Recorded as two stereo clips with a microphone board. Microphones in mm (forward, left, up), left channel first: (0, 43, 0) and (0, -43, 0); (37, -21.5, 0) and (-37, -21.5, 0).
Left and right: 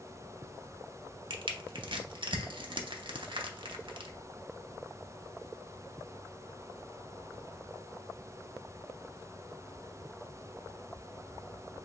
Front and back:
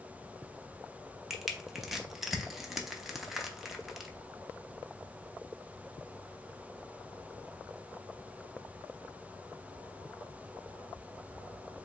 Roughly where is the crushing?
Right.